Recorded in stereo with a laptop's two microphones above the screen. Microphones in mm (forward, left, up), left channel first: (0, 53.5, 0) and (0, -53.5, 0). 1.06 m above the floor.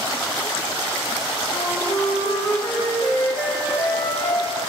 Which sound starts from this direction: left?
A flute, at 1.5 s.